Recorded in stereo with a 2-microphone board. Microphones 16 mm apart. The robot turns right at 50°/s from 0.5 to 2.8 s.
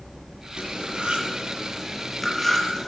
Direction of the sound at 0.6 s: 80° right.